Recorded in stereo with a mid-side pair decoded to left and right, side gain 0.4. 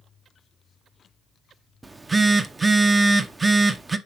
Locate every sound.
1.8 s a phone buzzing: 30° right, 0.8 m